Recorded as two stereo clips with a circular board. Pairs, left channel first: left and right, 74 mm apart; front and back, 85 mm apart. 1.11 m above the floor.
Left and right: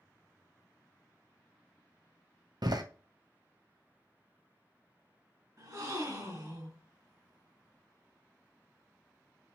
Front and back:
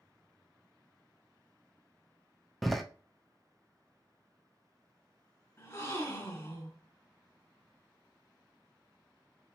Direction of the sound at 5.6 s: 55° right.